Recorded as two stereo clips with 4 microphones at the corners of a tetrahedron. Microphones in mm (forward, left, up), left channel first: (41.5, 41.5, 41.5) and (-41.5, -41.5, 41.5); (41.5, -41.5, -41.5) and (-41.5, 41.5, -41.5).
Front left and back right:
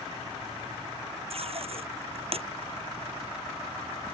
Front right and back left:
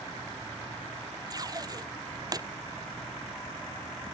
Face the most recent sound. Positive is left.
turn(degrees=-170)